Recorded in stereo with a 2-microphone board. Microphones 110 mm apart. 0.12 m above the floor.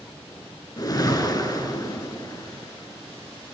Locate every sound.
0.8 s a whoosh: 35° left (ahead or behind), 0.6 m